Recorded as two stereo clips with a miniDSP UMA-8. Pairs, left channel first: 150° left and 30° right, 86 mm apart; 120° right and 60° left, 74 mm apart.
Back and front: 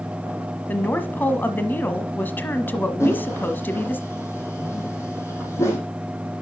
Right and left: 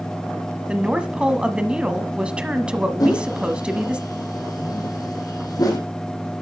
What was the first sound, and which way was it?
A woman speaking, 120° left.